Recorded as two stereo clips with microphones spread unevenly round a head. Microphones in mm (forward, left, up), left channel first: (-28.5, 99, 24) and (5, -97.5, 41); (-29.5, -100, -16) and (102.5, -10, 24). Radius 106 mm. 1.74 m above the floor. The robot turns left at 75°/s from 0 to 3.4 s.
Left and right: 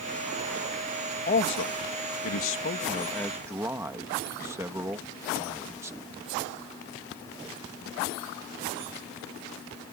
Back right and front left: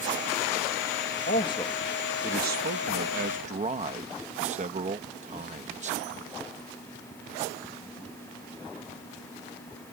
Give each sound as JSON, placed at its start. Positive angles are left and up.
{"t": 1.3, "sound": "a man speaking", "azimuth_deg": 155}